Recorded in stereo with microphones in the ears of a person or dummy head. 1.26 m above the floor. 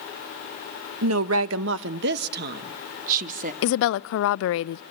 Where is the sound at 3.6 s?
70° left (ahead or behind), 0.6 m.